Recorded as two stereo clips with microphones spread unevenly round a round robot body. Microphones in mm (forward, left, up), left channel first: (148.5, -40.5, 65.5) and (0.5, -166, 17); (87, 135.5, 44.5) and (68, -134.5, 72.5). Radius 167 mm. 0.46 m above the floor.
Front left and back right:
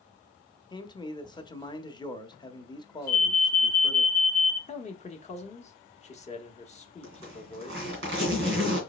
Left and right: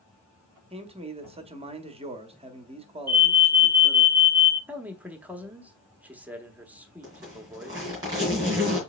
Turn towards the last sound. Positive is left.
turn(degrees=-170)